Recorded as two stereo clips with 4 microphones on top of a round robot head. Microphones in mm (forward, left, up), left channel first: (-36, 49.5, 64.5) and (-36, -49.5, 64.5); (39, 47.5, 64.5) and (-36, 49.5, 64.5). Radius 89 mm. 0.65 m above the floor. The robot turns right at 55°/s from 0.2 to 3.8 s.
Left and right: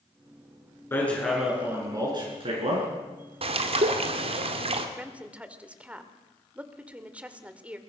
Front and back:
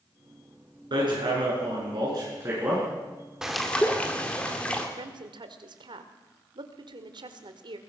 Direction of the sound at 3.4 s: 100° right.